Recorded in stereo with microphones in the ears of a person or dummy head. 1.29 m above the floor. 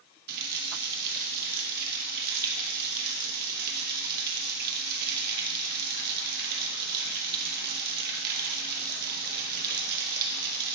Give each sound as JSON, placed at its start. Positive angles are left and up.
{"t": 0.3, "sound": "a running tap", "side_deg": -55, "distance_m": 1.3}